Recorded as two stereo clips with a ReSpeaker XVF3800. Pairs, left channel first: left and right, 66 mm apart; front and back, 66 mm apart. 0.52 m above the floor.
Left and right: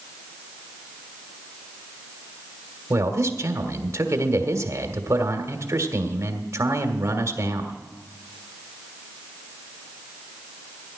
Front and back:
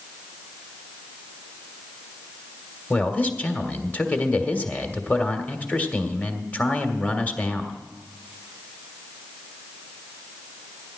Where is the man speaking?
60° right, 1.7 m.